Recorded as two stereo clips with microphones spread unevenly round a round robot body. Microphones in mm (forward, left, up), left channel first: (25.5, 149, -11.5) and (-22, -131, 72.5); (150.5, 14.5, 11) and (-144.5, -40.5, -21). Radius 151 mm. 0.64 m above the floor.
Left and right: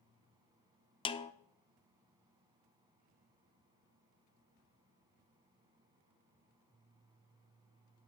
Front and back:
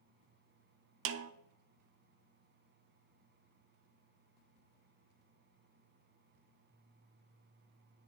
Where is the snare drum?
145° left, 0.6 m.